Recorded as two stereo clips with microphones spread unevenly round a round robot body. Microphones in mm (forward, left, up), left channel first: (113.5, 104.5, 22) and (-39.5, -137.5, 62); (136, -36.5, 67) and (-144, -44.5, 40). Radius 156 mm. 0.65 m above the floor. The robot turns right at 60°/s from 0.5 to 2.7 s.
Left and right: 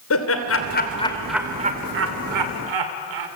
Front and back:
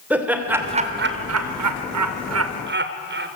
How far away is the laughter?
About 2 m.